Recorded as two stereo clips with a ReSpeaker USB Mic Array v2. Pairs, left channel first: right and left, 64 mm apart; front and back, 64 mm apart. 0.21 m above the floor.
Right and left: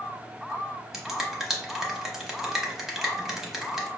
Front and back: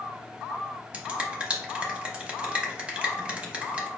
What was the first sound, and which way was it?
A finger snap, 165° left.